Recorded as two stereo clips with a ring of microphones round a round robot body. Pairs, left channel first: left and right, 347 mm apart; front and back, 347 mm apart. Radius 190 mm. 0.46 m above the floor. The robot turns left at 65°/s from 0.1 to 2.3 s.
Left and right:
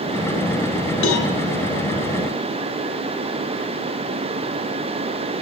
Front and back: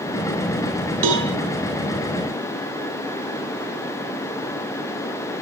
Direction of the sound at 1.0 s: 150° left.